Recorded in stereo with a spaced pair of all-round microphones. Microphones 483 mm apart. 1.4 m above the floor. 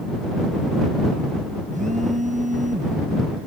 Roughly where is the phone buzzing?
Centre.